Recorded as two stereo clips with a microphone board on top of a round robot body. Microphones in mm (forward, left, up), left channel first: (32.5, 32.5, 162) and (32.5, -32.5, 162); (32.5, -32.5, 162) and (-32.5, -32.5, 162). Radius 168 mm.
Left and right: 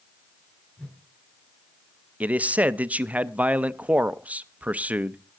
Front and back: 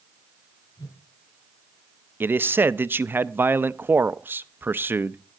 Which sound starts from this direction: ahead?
A whoosh, at 0.8 s.